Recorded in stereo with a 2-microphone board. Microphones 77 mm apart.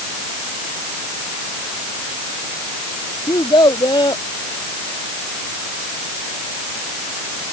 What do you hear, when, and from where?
3.3 s a child speaking: 75° left (ahead or behind)